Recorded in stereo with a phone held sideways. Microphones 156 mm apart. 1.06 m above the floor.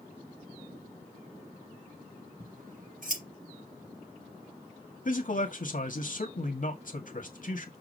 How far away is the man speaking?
About 1.9 m.